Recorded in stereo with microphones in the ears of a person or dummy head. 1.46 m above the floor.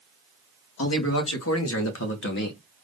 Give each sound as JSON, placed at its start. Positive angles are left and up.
{"t": 0.8, "sound": "a man speaking", "side_deg": 80, "distance_m": 1.8}